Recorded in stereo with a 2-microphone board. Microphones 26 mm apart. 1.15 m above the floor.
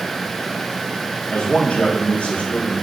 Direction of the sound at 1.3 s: 70° left (ahead or behind).